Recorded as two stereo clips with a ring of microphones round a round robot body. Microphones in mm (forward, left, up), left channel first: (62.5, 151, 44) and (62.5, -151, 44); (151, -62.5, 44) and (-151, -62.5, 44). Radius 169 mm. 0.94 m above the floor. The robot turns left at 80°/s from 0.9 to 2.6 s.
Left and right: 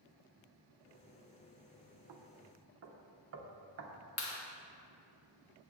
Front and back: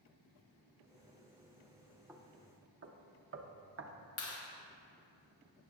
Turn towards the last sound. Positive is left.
turn(degrees=55)